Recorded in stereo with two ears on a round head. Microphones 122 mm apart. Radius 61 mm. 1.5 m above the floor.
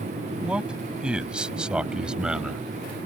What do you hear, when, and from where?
0.4 s a man speaking: 5° right (ahead or behind)